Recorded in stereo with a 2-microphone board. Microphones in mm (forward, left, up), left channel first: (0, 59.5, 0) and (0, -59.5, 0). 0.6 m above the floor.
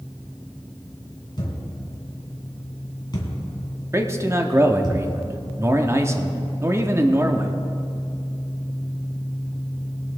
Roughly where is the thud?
Left.